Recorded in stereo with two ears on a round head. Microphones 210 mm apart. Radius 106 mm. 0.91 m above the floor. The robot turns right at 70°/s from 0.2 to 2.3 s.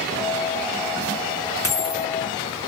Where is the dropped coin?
10° left (ahead or behind), 0.9 m; by 2.1 s 40° left (ahead or behind), 0.9 m.